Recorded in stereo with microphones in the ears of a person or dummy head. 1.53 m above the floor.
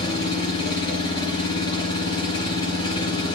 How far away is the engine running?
About 4.5 m.